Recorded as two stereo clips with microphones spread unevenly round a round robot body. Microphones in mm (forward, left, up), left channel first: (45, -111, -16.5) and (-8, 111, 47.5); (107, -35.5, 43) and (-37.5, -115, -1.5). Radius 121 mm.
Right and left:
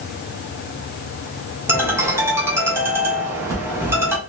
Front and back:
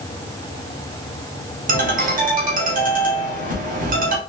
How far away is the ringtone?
About 1.2 m.